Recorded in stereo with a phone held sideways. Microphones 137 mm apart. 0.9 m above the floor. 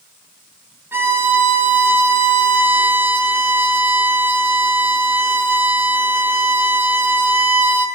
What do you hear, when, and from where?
0.9 s a violin: 15° right (ahead or behind), 0.8 m